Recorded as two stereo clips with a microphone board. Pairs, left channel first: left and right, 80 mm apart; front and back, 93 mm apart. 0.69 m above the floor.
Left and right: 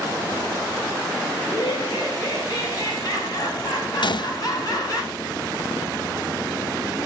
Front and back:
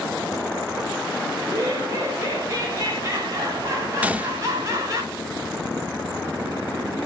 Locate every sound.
1.4 s laughter: 130° left, 4 m
4.0 s a gunshot: 105° left, 0.6 m